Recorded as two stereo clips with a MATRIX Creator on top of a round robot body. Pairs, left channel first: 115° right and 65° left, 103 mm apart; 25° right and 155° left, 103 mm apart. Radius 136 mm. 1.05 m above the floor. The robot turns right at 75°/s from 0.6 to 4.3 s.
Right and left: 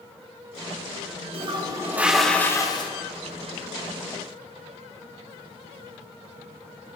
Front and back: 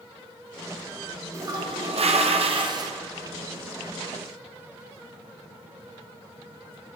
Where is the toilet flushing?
95° left, 1.7 m; by 2.9 s 150° right, 1.7 m.